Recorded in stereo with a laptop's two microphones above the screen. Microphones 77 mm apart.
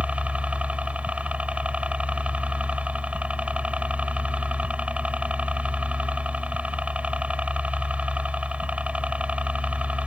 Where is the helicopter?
15° right (ahead or behind).